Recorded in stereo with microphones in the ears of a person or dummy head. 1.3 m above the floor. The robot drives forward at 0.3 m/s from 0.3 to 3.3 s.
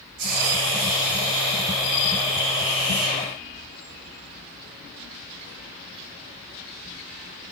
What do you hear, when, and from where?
0.2 s a hiss: 65° right (ahead or behind), 3 m; by 3.2 s 80° right, 3 m